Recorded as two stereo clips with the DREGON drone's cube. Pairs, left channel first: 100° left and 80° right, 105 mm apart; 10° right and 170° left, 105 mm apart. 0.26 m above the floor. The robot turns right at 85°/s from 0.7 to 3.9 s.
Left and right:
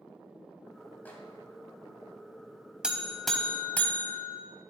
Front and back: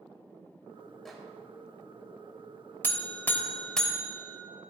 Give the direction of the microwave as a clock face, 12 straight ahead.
10 o'clock.